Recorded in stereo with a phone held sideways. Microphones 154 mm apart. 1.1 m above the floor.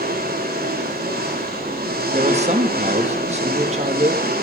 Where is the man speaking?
45° right (ahead or behind), 1.9 m.